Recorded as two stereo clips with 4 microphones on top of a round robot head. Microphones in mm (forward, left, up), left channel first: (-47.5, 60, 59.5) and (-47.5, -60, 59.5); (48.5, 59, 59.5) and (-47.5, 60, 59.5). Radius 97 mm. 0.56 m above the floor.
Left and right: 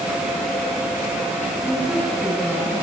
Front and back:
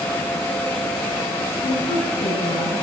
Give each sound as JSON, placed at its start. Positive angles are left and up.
{"t": 1.6, "sound": "a woman speaking", "azimuth_deg": -5, "distance_m": 8.0}